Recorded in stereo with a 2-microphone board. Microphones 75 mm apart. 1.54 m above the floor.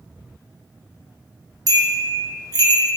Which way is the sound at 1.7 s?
55° right (ahead or behind).